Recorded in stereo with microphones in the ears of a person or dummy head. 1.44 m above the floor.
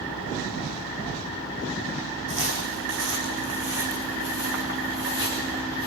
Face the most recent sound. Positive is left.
turn(degrees=-50)  # may be behind; listen again after turning